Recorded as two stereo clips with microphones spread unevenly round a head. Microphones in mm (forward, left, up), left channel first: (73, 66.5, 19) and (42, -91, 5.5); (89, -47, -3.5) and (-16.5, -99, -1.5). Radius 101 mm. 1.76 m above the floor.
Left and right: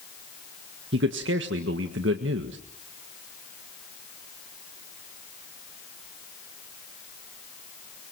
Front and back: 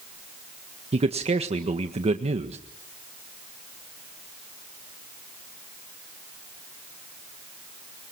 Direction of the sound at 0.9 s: 130° right.